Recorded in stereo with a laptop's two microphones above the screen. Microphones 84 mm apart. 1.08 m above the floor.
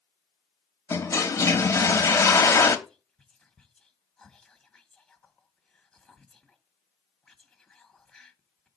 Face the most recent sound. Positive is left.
turn(degrees=10)  # may be behind; listen again after turning